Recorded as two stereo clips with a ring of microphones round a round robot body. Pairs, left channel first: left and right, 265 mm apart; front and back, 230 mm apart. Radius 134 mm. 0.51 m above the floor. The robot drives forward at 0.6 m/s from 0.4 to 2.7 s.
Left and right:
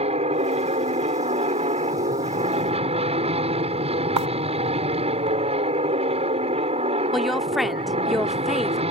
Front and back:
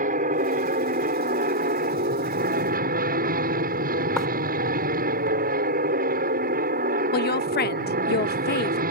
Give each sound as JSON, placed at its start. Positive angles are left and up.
{"t": 0.0, "sound": "an aircraft", "azimuth_deg": -145}
{"t": 4.2, "sound": "writing", "azimuth_deg": -90}
{"t": 7.1, "sound": "a woman speaking", "azimuth_deg": 0}